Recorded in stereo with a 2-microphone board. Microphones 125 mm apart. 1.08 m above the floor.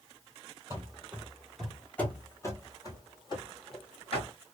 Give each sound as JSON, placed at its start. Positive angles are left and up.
{"t": 0.7, "sound": "running footsteps", "side_deg": -20, "distance_m": 1.1}